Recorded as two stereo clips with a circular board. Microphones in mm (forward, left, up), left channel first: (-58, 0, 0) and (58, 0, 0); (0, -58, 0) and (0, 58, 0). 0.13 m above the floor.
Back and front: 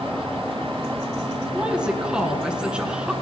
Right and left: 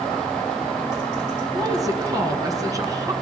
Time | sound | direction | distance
1.5 | a woman speaking | 75° left | 1.7 m